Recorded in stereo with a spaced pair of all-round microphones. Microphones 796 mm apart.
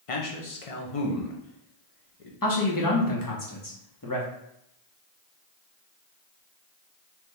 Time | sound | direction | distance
0.1 | a man speaking | 50° left (ahead or behind) | 0.8 m
2.4 | a man speaking | 25° left (ahead or behind) | 1.0 m